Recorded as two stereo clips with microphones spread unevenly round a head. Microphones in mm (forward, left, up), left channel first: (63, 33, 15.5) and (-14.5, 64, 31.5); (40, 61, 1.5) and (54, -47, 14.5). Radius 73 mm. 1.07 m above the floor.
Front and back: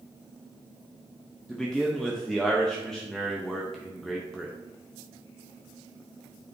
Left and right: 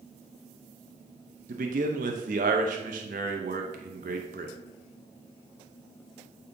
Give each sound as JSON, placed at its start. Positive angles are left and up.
{"t": 1.5, "sound": "a man speaking", "azimuth_deg": -105, "distance_m": 0.7}